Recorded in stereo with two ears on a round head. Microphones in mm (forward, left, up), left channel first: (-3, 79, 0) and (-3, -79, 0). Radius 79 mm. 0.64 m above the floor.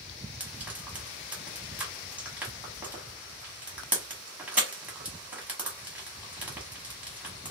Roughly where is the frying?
Centre.